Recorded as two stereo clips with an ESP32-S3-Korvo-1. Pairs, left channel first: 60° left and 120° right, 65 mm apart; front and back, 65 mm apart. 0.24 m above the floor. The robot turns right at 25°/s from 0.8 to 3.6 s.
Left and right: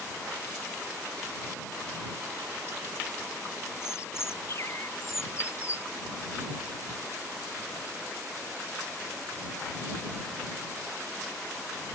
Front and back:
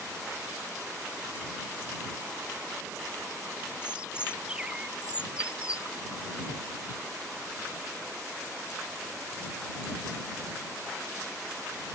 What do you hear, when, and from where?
3.8 s a bird: 105° left